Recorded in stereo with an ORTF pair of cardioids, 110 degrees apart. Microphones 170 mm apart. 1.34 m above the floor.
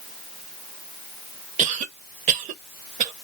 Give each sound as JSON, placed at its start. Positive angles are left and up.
{"t": 1.6, "sound": "a cough", "azimuth_deg": -50, "distance_m": 0.8}